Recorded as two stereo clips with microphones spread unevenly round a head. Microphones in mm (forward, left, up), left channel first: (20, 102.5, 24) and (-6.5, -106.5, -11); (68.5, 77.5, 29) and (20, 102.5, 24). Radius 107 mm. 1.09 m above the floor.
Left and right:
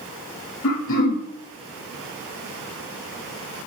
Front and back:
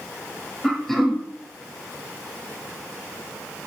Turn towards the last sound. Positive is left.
turn(degrees=60)